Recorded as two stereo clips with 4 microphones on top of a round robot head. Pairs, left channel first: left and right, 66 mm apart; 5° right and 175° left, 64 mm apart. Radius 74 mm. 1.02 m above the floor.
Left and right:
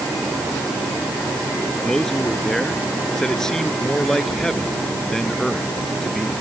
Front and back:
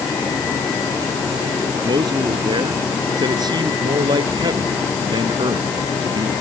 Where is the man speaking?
175° left.